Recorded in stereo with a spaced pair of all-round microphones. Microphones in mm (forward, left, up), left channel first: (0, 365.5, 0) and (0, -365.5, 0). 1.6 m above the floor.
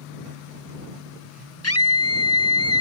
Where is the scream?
20° left (ahead or behind).